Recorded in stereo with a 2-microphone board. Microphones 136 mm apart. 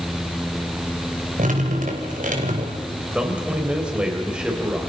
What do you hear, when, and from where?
1.4 s dripping: 75° right (ahead or behind), 3.5 m
3.1 s a man speaking: 10° right (ahead or behind), 5 m